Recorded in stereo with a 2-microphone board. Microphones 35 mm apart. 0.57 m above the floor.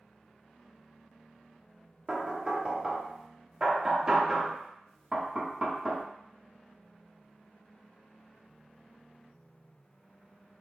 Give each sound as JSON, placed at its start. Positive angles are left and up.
{"t": 2.1, "sound": "knocking", "side_deg": -20, "distance_m": 0.5}